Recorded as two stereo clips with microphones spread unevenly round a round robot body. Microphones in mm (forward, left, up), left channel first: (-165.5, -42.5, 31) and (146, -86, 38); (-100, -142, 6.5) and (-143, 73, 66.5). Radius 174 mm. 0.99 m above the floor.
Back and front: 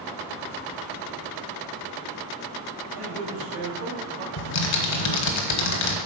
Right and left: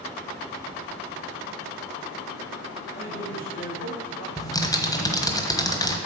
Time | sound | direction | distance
2.9 | a man speaking | 10° right | 2.5 m
4.4 | typing on a keyboard | 160° right | 1.2 m